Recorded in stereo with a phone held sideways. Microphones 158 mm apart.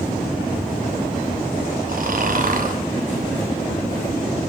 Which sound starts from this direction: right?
Snoring, at 1.9 s.